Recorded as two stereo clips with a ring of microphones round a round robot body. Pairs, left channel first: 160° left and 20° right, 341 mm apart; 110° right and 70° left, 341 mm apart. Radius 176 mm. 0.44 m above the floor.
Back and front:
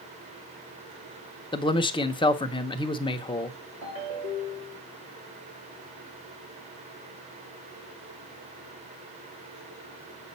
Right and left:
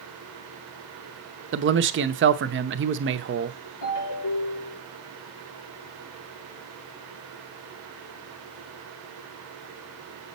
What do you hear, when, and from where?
1.5 s a man speaking: 90° left, 0.8 m
3.8 s a ringtone: 75° right, 5 m